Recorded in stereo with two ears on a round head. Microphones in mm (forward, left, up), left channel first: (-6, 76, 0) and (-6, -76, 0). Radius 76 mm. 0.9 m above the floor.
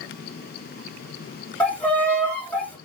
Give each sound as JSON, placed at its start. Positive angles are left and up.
{"t": 1.6, "sound": "a violin", "side_deg": 10, "distance_m": 1.6}